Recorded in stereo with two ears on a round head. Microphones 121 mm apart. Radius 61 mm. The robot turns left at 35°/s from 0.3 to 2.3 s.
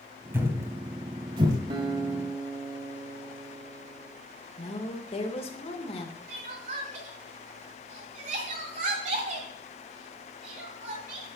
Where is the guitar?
40° right (ahead or behind), 1.6 m; by 4.1 s 20° right (ahead or behind), 1.6 m.